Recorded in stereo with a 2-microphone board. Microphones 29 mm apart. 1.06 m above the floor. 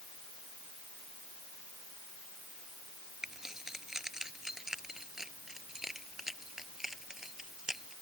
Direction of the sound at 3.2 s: 15° right (ahead or behind).